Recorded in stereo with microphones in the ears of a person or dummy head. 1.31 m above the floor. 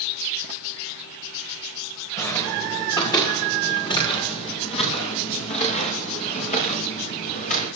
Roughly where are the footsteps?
Centre.